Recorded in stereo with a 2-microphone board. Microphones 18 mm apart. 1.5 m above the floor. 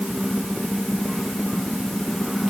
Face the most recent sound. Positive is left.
No sound to turn to.